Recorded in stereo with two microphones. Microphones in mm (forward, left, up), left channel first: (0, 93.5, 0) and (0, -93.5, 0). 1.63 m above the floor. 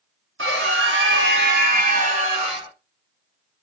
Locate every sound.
0.4 s a scream: 80° right, 1.4 m; by 2.7 s 25° right (ahead or behind), 1.5 m